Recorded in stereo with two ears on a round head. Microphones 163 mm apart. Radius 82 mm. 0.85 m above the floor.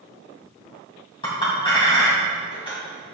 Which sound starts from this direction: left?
A clink, at 1.2 s.